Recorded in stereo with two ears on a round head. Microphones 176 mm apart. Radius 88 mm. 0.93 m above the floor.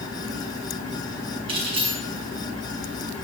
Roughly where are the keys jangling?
Right.